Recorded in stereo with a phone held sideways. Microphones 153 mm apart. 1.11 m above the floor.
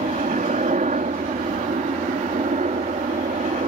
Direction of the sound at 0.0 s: 60° right (ahead or behind).